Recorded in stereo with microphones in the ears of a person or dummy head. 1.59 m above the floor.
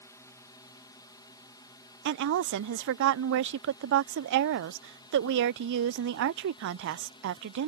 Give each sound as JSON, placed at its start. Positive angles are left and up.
{"t": 0.0, "sound": "a drone", "side_deg": 20}
{"t": 2.0, "sound": "a woman speaking", "side_deg": -65}